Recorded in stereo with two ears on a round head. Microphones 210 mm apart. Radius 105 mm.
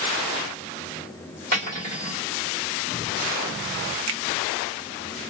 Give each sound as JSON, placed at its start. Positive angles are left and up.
{"t": 1.5, "sound": "cutlery clinking", "side_deg": -35, "distance_m": 1.7}
{"t": 4.1, "sound": "a finger snap", "side_deg": -60, "distance_m": 0.6}